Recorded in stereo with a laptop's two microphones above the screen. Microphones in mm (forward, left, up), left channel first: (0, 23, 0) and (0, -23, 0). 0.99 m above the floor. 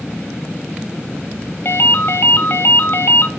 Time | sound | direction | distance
1.6 | a ringtone | 50° left (ahead or behind) | 0.8 m